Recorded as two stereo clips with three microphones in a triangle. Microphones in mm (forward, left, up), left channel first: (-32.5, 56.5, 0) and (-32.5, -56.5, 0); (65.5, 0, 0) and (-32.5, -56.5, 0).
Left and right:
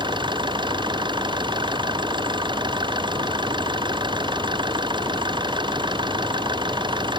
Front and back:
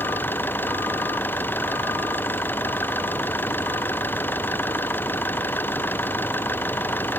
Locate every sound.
0.0 s an engine running: 45° right